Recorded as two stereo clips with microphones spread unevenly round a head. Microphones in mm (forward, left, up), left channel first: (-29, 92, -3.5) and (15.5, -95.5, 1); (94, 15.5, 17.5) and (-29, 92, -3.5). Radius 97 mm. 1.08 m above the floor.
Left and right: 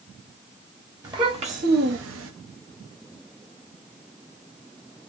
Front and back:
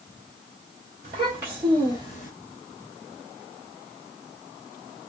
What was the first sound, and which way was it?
A child speaking, 150° right.